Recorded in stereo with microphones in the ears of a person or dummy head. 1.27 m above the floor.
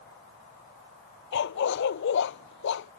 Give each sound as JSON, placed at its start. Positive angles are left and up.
{"t": 1.3, "sound": "a dog barking", "side_deg": 65}